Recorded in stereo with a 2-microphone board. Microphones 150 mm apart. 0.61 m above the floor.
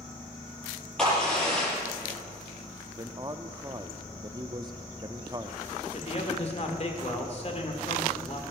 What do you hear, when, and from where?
1.0 s a crack: 5° left (ahead or behind), 7 m
3.0 s a man speaking: 25° right (ahead or behind), 0.6 m
5.9 s a man speaking: 45° left (ahead or behind), 2 m